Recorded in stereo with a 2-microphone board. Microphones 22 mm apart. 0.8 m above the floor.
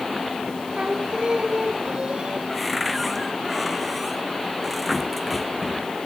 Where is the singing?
50° right (ahead or behind).